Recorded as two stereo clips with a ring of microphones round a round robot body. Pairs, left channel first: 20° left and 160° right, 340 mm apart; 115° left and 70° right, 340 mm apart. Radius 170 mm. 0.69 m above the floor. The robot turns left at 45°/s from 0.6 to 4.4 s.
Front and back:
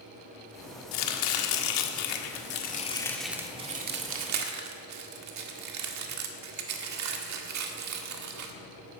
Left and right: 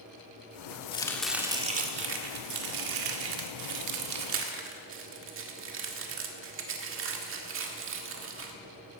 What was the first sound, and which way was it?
Chopping, 40° left.